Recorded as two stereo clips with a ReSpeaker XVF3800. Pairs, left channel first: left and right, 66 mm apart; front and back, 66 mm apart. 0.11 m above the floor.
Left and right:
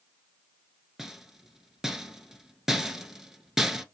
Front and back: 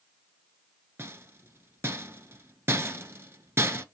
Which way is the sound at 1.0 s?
170° right.